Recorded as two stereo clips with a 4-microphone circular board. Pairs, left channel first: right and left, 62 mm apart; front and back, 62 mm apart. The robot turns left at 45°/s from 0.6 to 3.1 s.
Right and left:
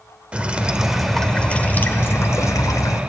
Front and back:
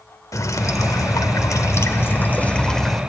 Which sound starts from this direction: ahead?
Dripping, at 0.3 s.